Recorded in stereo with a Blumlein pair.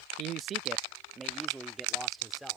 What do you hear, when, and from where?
0.2 s a man speaking: 35° right; by 2.6 s straight ahead